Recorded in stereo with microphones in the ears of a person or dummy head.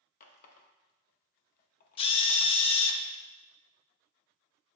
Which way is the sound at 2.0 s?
30° left (ahead or behind).